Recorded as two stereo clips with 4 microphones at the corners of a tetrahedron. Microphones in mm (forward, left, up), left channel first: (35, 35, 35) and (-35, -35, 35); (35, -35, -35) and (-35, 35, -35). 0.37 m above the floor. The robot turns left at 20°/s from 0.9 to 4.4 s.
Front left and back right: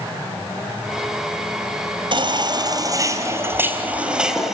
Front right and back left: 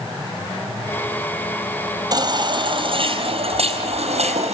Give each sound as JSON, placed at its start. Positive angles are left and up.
{"t": 2.1, "sound": "a baby crying", "azimuth_deg": -175, "distance_m": 3.5}